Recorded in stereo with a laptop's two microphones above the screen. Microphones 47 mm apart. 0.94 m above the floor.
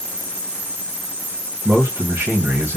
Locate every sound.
1.6 s a man speaking: 65° right (ahead or behind), 1.0 m